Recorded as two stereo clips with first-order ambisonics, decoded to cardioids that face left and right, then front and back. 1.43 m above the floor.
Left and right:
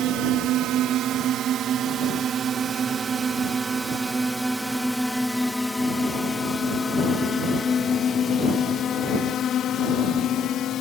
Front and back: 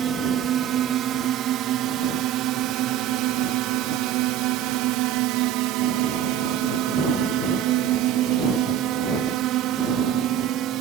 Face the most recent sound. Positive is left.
turn(degrees=140)